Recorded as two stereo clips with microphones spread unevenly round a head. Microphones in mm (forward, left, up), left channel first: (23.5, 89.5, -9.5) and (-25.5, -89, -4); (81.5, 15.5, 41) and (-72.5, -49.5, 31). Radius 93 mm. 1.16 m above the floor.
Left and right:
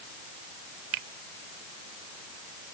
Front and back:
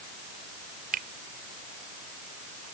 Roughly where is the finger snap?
Behind right.